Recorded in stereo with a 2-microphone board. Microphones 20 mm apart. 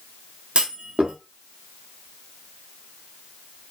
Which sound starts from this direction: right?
A clunk, at 0.6 s.